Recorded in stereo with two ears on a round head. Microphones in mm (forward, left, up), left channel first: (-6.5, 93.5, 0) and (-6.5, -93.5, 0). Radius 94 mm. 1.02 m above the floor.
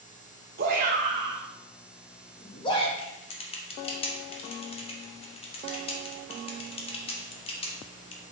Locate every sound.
0.6 s a shout: 45° right (ahead or behind), 1.2 m; by 2.9 s 25° left (ahead or behind), 1.8 m
3.0 s typing on a keyboard: 25° left (ahead or behind), 1.1 m